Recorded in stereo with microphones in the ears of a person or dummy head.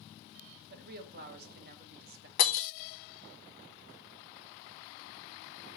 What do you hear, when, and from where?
0.7 s a woman speaking: 50° right (ahead or behind), 1.3 m
2.4 s breaking glass: 45° left (ahead or behind), 0.7 m